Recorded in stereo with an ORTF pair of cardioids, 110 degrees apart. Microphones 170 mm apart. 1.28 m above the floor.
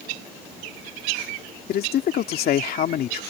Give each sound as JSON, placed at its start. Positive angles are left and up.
{"t": 1.7, "sound": "a man speaking", "azimuth_deg": 60}